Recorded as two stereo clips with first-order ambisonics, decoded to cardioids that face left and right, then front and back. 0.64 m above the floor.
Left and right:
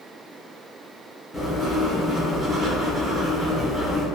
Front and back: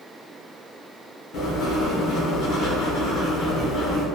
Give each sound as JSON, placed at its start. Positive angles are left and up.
{"t": 1.3, "sound": "writing", "azimuth_deg": 15, "distance_m": 0.7}